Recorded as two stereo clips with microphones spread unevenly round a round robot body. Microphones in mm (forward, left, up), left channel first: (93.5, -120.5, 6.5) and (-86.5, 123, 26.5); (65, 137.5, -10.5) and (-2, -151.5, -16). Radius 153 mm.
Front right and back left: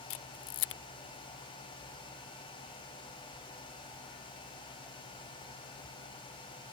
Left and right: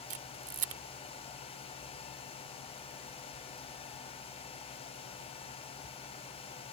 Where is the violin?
No violin in this recording.